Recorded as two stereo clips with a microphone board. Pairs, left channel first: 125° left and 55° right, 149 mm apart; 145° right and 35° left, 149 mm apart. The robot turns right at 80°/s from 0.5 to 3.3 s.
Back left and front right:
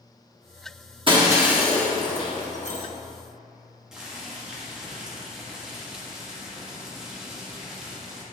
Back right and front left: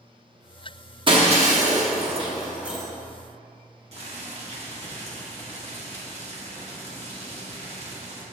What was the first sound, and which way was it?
Breaking glass, 15° right.